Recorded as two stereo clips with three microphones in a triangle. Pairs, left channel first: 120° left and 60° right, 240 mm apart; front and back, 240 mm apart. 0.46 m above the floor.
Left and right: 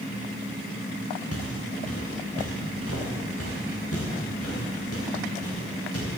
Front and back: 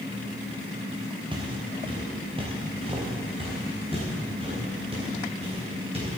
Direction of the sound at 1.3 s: 110° left.